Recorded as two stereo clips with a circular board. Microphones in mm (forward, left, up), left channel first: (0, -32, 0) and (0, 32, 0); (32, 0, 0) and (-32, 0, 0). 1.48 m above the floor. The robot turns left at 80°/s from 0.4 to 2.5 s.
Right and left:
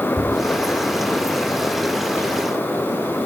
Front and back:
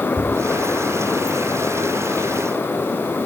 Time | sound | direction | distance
0.2 | tapping | 140° left | 4.5 m